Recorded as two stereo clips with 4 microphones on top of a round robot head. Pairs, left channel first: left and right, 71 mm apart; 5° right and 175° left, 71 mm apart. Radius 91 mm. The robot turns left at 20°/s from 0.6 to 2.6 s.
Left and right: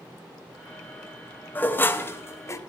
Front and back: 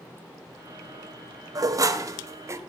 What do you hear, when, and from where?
1.6 s dishes clattering: 150° left, 0.8 m; by 2.6 s 130° left, 0.8 m